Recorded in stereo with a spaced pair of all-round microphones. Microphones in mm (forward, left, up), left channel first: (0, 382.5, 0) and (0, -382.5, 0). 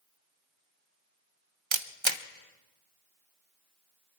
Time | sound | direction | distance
1.7 | a camera shutter | 40° right (ahead or behind) | 0.8 m